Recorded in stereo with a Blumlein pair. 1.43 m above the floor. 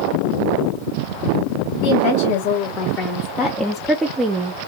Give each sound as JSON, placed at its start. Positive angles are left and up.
{"t": 1.8, "sound": "a woman speaking", "azimuth_deg": 55, "distance_m": 1.4}